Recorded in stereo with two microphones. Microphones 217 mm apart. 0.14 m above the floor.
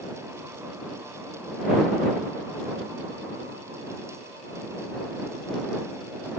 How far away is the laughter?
I don't hear laughter.